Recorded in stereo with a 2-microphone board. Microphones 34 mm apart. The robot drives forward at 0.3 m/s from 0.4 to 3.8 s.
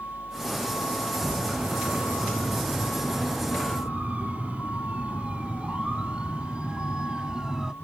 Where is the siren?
55° right (ahead or behind); by 7.7 s 20° right (ahead or behind).